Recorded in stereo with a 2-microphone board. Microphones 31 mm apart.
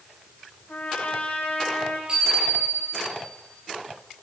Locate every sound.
0.7 s a trumpet: 75° left (ahead or behind), 5 m
2.1 s a bicycle bell: 30° right (ahead or behind), 8.5 m